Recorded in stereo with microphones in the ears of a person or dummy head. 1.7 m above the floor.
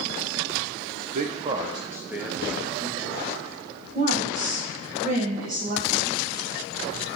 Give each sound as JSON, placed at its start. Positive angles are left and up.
{"t": 1.0, "sound": "a man speaking", "side_deg": -45, "distance_m": 0.6}
{"t": 4.0, "sound": "a woman speaking", "side_deg": -35, "distance_m": 1.8}